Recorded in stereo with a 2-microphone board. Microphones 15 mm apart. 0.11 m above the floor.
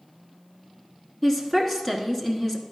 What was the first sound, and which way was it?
A woman speaking, 20° left (ahead or behind).